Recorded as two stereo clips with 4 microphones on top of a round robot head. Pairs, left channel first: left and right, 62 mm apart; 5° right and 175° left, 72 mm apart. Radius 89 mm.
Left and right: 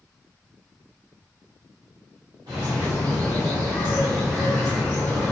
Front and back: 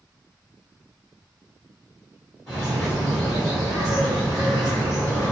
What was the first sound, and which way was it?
A bird, 95° right.